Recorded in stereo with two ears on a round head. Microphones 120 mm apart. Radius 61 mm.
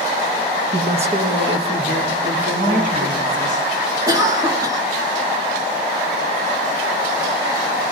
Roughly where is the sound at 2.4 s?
Right.